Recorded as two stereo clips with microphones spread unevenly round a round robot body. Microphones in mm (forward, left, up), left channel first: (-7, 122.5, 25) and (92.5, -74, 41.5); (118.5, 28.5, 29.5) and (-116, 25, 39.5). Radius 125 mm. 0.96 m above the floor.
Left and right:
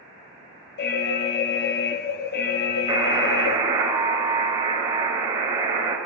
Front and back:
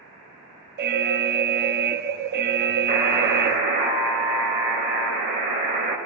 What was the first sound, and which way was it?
An alarm, 140° left.